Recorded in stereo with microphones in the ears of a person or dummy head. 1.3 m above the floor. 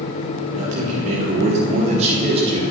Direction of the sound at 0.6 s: 50° right (ahead or behind).